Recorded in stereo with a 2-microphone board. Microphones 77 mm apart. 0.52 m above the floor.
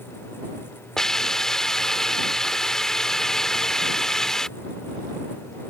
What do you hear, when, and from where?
1.0 s a hiss: 5° left (ahead or behind)